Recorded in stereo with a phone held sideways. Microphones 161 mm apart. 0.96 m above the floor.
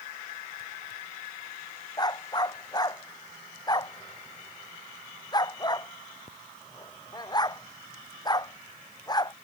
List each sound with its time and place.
2.0 s a dog barking: 25° left (ahead or behind)